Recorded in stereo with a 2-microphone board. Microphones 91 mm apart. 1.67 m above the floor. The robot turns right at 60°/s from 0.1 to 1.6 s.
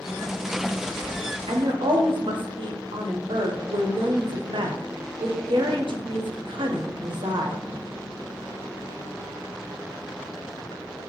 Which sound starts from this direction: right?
A woman speaking, at 1.5 s.